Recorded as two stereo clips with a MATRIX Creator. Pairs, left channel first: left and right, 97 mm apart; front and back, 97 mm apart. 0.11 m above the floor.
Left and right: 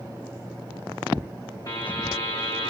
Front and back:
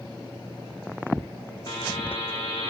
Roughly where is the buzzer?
Ahead left.